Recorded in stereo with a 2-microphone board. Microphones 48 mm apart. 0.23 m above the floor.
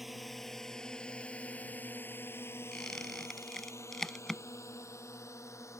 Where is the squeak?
10° left (ahead or behind).